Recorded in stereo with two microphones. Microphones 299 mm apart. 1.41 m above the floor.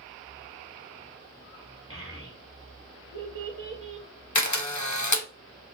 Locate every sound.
1.9 s a child speaking: 45° right (ahead or behind), 1.5 m
4.3 s a camera shutter: 70° left (ahead or behind), 1.0 m